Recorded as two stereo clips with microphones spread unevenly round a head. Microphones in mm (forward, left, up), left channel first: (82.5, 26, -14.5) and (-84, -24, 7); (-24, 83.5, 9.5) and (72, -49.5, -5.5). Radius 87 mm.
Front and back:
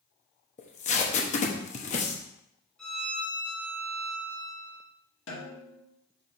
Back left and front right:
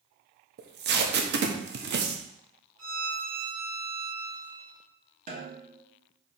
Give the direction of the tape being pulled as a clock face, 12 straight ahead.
1 o'clock.